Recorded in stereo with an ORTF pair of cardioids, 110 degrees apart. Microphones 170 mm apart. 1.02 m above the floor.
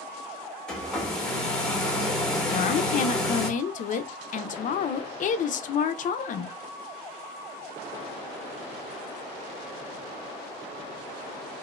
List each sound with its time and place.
0.7 s a hair dryer: 5° left, 0.9 m
2.5 s a woman speaking: 45° left, 0.6 m